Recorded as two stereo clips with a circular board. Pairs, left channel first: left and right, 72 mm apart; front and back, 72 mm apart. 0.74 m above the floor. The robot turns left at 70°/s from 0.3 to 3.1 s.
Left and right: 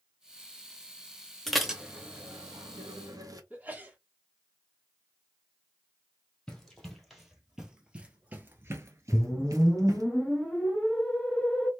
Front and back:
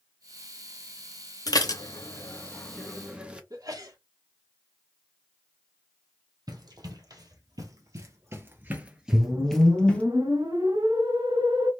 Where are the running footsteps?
170° left, 1.7 m; by 10.1 s 65° right, 1.2 m.